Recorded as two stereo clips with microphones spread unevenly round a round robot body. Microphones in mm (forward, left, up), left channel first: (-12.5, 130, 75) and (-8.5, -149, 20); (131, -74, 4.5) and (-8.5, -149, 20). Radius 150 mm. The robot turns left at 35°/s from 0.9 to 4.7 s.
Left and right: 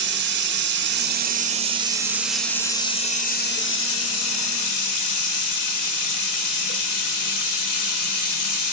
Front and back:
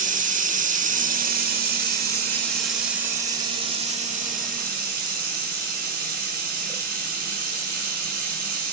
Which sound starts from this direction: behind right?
Running water, at 0.0 s.